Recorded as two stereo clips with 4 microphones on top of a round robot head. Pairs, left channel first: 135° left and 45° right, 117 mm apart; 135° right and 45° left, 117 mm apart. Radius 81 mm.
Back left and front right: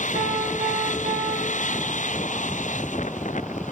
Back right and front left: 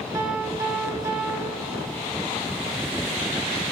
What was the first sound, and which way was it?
A piano, 20° right.